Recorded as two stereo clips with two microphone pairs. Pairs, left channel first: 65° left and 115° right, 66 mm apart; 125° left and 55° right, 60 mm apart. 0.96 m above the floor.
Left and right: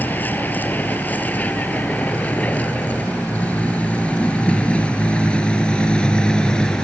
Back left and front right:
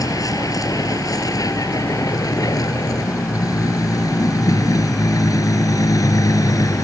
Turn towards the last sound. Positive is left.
turn(degrees=145)